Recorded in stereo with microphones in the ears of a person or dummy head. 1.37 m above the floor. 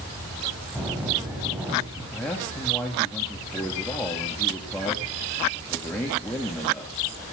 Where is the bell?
10° right (ahead or behind), 3.5 m.